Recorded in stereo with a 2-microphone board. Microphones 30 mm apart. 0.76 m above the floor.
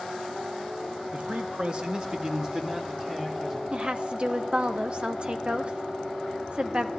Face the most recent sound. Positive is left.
turn(degrees=-40)  # may be behind; listen again after turning